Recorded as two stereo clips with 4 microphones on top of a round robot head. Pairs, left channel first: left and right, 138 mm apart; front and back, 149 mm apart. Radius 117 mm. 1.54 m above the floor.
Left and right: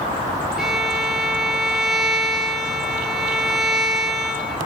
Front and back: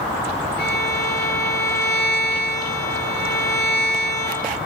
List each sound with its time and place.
0.6 s a violin: 5° right, 5.5 m